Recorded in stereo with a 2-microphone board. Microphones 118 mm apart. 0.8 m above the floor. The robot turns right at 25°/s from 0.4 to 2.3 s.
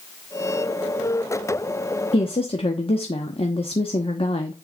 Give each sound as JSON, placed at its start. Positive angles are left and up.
{"t": 2.1, "sound": "a woman speaking", "side_deg": 50, "distance_m": 1.1}